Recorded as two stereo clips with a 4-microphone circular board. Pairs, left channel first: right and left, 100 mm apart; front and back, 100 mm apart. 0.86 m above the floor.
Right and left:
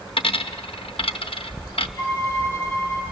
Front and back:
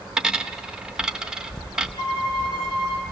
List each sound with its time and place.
0.2 s a dropped coin: 100° right, 0.6 m
2.0 s a violin: 25° right, 7.5 m